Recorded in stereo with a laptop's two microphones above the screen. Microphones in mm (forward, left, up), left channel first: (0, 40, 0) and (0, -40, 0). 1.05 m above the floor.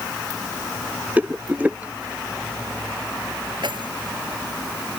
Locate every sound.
1.2 s a rattle: 20° right (ahead or behind)
3.6 s keys jangling: 75° right (ahead or behind)